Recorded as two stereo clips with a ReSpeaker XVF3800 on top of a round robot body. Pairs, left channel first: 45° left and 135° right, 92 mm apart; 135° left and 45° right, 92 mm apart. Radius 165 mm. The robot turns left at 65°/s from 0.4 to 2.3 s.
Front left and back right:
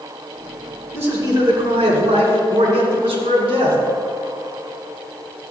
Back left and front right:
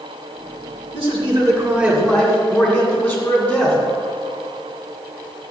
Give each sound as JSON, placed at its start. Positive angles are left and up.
{"t": 0.9, "sound": "a man speaking", "azimuth_deg": -65, "distance_m": 2.5}